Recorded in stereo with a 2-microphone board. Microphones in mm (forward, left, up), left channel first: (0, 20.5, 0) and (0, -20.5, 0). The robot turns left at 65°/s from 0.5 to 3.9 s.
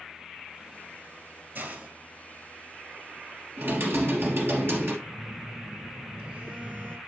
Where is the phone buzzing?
50° right (ahead or behind), 1.2 m.